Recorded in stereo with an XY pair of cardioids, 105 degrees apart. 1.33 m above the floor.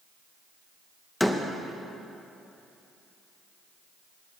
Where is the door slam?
5° left, 1.0 m.